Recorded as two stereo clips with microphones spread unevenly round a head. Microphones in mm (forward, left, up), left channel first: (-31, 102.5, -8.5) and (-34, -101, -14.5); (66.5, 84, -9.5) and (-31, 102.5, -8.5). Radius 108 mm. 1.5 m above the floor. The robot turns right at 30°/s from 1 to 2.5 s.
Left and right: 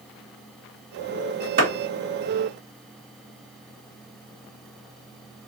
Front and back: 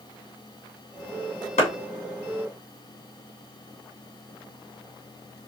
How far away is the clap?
About 2 m.